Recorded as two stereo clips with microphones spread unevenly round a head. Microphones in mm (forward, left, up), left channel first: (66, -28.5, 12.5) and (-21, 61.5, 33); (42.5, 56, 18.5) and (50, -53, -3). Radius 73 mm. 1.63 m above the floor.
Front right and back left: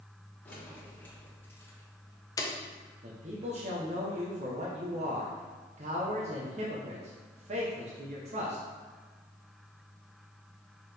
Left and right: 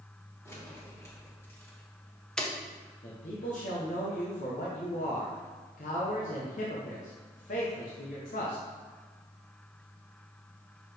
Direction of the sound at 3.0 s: 100° left.